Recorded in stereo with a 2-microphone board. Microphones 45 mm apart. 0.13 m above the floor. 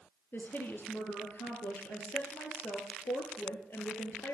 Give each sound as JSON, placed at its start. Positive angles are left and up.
{"t": 0.3, "sound": "a woman speaking", "side_deg": 50, "distance_m": 3.0}